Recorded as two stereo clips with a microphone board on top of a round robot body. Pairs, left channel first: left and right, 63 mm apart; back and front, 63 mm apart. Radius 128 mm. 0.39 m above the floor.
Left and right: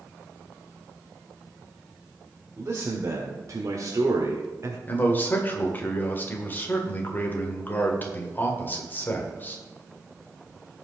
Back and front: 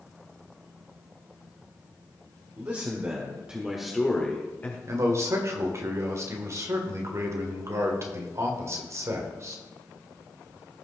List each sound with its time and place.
2.6 s a man speaking: 40° right, 1.8 m; by 4.8 s 125° right, 1.7 m
4.9 s a man speaking: 35° left, 1.9 m